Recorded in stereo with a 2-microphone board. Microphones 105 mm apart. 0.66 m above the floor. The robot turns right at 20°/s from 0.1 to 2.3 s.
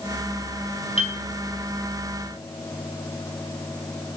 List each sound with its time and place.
1.0 s a piano: 75° left (ahead or behind), 4 m